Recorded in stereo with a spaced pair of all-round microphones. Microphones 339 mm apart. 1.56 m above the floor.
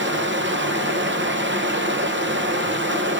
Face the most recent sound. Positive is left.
turn(degrees=-35)  # may be behind; listen again after turning